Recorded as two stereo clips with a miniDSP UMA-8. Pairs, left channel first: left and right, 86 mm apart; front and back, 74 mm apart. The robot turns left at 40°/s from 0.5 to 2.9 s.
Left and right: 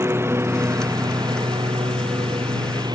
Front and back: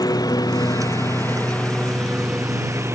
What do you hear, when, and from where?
0.0 s a lawn mower: 30° right; by 3.0 s 125° right